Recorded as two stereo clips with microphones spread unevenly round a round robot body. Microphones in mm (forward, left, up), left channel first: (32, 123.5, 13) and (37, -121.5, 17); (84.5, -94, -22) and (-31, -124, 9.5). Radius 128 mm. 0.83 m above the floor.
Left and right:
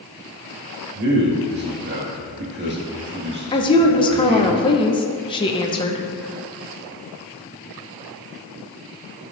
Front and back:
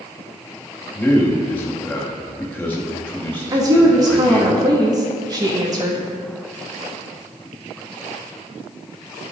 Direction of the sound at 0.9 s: 50° right.